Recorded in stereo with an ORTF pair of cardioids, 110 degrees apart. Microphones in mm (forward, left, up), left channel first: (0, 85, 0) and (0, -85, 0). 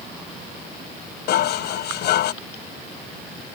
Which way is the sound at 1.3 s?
70° left.